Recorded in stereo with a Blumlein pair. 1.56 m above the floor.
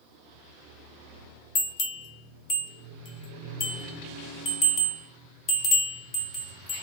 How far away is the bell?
About 1.3 m.